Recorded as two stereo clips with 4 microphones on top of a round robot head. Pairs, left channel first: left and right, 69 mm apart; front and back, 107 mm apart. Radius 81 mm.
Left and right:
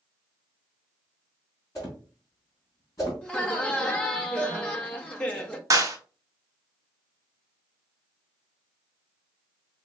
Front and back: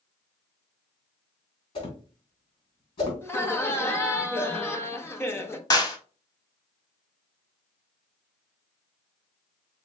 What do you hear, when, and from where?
1.8 s a whoosh: 35° left, 3 m
3.2 s laughter: 35° left, 0.9 m
5.7 s a clap: 55° right, 1.0 m